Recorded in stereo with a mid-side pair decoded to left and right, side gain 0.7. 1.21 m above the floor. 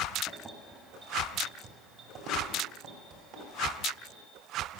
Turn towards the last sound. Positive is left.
turn(degrees=-60)